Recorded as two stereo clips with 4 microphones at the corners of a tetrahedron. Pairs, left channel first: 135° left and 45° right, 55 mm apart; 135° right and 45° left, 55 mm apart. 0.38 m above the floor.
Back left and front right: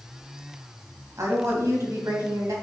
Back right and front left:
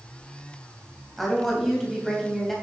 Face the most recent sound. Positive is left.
turn(degrees=-50)